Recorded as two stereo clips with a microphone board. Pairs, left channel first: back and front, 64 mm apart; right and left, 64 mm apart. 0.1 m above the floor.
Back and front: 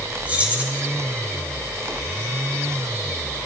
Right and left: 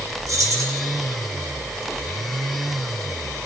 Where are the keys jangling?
65° left, 3.5 m.